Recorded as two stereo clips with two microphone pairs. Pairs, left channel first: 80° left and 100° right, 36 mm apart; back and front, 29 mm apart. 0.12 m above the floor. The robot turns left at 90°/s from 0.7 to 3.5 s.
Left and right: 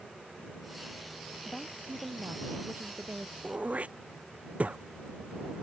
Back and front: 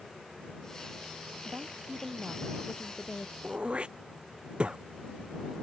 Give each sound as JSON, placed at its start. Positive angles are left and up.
{"t": 1.4, "sound": "a woman speaking", "azimuth_deg": 10}
{"t": 3.4, "sound": "throat clearing", "azimuth_deg": -45}